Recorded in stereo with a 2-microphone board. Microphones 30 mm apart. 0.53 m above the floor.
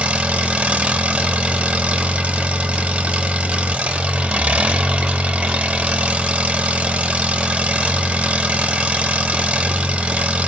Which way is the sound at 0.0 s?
40° right (ahead or behind).